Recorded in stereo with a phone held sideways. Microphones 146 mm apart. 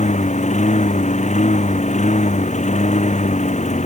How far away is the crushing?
I don't hear crushing.